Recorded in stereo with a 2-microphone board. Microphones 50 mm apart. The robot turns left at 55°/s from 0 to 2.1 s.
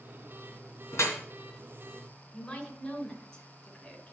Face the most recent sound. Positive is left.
turn(degrees=10)  # may be behind; listen again after turning